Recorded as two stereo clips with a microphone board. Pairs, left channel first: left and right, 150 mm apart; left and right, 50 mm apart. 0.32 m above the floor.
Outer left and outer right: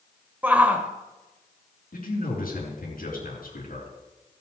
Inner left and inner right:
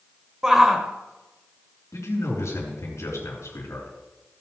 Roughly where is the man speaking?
Left.